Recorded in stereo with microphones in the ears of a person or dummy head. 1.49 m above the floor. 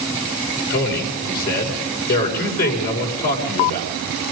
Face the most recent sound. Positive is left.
turn(degrees=55)  # may be behind; listen again after turning